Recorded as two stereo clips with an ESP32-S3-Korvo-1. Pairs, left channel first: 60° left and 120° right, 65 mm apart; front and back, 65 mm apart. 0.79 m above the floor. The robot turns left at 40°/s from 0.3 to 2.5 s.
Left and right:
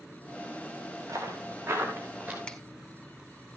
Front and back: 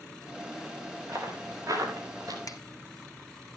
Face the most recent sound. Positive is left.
turn(degrees=-10)